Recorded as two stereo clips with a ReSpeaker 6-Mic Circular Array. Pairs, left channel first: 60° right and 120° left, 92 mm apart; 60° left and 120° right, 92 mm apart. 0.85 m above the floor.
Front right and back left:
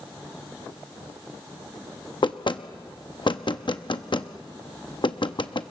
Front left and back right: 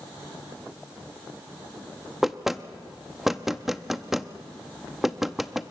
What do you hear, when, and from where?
2.2 s knocking: 35° right, 0.8 m